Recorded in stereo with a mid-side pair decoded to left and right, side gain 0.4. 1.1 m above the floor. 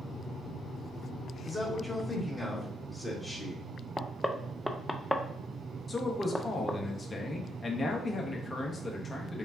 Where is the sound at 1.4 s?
25° left, 1.5 m.